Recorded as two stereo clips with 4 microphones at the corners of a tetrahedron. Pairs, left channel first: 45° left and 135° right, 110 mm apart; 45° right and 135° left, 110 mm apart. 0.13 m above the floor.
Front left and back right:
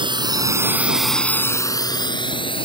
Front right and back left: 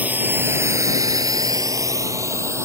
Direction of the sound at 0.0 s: 155° right.